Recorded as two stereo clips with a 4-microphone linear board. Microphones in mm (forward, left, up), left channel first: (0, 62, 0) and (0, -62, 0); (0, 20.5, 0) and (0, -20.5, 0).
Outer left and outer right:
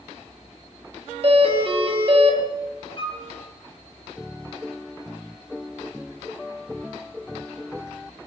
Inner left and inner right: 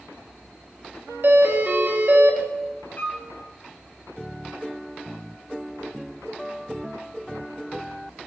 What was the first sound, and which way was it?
A doorbell, 50° right (ahead or behind).